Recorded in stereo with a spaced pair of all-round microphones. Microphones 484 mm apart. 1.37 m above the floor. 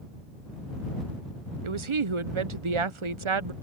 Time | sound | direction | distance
1.6 | a woman speaking | 70° right (ahead or behind) | ?